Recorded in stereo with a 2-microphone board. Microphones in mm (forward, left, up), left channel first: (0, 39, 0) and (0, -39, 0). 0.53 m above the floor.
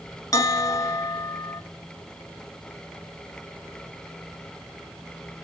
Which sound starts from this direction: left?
A bell, at 0.3 s.